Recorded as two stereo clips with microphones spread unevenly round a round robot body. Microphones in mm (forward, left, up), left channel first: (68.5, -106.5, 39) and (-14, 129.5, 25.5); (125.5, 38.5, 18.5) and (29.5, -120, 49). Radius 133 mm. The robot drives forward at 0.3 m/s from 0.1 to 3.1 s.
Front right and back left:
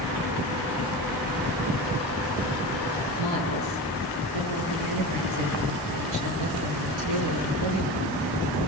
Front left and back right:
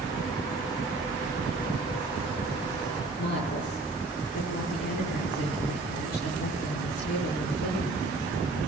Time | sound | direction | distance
3.2 | a woman speaking | 115° left | 8 m